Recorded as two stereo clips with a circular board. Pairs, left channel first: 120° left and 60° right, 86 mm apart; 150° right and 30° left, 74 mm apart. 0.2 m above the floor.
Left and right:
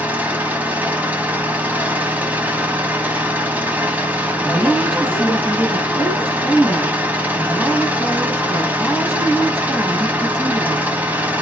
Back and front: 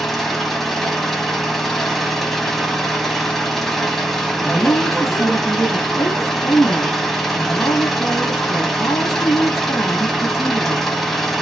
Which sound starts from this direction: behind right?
A woman speaking, at 4.4 s.